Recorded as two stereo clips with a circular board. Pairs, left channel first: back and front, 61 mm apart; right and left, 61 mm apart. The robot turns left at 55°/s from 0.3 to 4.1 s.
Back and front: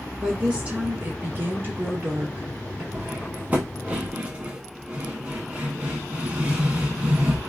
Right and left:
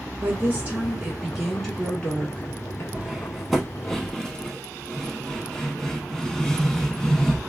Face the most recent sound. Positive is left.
turn(degrees=-30)